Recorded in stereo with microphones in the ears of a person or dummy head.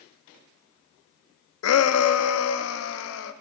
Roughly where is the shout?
Left.